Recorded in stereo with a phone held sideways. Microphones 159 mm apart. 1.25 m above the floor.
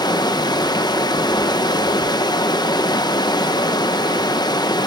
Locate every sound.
0.0 s running water: 25° left (ahead or behind), 1.0 m